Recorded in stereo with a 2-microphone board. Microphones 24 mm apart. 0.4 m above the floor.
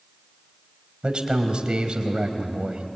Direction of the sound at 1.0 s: 45° right (ahead or behind).